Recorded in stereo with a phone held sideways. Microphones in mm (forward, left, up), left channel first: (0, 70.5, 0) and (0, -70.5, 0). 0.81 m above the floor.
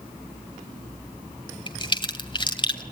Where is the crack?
35° left (ahead or behind), 2 m.